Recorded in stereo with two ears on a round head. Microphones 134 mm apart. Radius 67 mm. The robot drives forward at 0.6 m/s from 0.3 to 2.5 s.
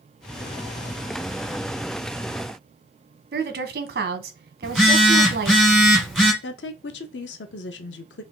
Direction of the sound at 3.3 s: 70° right (ahead or behind).